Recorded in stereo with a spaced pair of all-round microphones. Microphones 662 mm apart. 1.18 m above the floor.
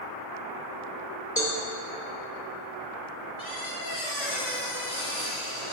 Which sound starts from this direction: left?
A squeak, at 3.4 s.